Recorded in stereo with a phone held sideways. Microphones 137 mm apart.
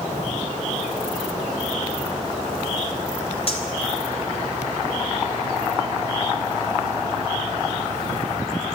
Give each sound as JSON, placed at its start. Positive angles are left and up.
{"t": 3.5, "sound": "cutlery clinking", "side_deg": 45, "distance_m": 3.5}